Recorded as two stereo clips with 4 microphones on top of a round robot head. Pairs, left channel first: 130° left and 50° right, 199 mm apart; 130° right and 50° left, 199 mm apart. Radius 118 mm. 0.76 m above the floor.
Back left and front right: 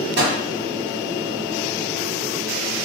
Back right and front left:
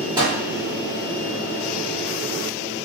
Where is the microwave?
20° right, 1.4 m.